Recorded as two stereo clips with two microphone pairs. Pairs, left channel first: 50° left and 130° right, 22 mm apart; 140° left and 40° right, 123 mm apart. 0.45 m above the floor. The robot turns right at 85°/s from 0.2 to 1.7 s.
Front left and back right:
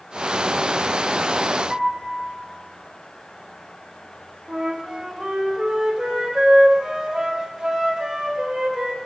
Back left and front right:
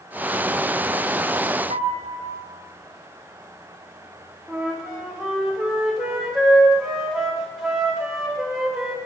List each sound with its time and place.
1.7 s a piano: 50° right, 1.1 m
4.5 s a flute: 125° right, 1.3 m